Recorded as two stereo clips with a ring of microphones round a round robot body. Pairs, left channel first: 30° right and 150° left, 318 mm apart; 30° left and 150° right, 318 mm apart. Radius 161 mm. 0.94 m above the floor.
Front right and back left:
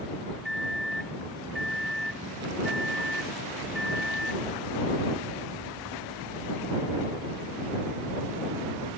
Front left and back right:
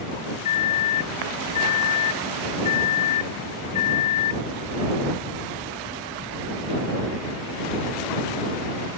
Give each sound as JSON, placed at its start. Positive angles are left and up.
{"t": 0.5, "sound": "a microwave", "azimuth_deg": 60}